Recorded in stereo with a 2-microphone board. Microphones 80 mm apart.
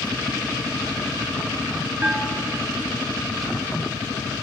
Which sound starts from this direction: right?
A bell, at 2.0 s.